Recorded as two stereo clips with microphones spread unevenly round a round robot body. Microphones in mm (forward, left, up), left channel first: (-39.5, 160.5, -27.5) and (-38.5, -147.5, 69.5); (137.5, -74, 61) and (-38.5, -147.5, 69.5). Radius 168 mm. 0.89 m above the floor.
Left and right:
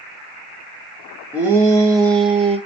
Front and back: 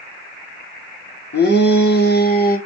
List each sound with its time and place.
1.3 s a shout: straight ahead, 2.5 m; by 2.6 s 10° right, 2 m